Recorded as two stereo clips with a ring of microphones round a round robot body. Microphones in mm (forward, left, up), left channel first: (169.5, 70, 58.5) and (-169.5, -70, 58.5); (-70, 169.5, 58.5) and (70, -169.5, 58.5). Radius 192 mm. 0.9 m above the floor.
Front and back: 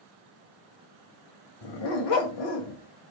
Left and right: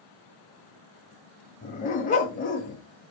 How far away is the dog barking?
About 1.4 m.